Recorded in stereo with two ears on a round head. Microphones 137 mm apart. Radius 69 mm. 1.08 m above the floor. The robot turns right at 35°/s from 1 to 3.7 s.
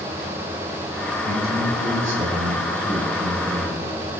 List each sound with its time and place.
1.2 s a man speaking: 75° right, 7 m; by 3.9 s 10° left, 7 m